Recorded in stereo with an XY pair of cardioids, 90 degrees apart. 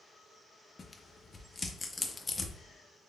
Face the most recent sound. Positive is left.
turn(degrees=30)